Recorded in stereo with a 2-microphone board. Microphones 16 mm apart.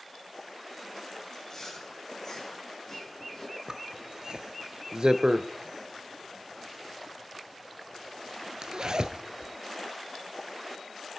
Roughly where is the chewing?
Left.